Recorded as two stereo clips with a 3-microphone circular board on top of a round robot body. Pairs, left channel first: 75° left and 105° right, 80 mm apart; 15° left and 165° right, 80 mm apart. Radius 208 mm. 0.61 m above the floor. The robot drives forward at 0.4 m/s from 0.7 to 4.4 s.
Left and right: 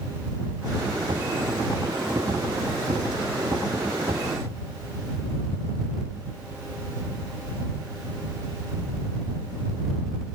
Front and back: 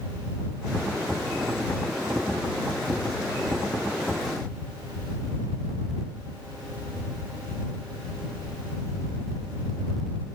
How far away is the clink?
I don't hear a clink.